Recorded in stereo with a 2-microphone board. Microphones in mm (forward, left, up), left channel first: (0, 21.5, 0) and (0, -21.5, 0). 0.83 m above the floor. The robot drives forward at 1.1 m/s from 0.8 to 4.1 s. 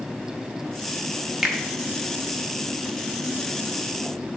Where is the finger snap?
5° right (ahead or behind), 0.9 m; by 1.6 s 10° right (ahead or behind), 0.7 m.